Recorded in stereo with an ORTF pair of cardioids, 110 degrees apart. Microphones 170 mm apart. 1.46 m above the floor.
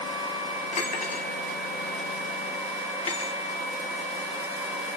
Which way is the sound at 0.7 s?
40° left.